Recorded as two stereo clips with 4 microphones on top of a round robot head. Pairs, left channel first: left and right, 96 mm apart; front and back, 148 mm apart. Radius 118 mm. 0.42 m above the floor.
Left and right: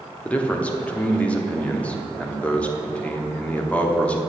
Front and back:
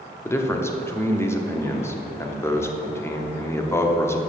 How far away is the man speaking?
About 1.1 m.